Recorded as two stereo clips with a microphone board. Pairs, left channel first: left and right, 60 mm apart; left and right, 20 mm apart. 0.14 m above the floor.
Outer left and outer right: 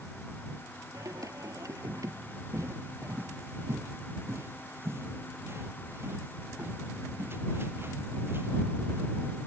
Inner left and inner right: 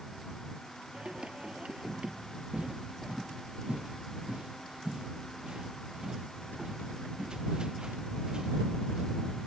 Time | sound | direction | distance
0.9 | singing | 65° right (ahead or behind) | ?
2.5 | footsteps | 50° right (ahead or behind) | ?